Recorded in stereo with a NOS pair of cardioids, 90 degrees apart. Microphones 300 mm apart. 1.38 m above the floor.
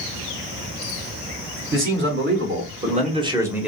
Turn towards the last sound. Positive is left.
turn(degrees=0)